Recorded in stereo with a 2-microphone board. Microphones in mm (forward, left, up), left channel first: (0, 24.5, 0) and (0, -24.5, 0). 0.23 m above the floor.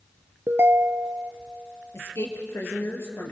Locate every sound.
0.5 s a ringtone: 60° right (ahead or behind), 1.6 m
1.9 s a woman speaking: 70° left (ahead or behind), 4.5 m